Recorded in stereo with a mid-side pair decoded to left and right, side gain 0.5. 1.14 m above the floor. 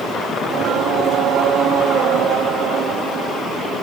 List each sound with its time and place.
0.4 s singing: 70° right, 2.5 m